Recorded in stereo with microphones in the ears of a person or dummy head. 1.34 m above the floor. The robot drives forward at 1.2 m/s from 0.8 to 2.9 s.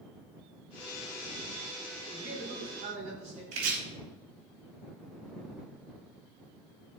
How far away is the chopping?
About 3.5 m.